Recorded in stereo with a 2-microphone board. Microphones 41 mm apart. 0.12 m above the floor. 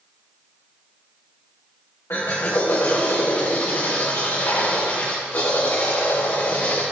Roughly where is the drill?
Left.